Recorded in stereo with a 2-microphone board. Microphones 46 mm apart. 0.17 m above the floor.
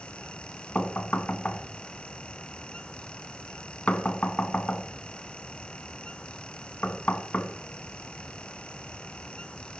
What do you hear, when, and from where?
0.8 s knocking: 35° left (ahead or behind), 1.0 m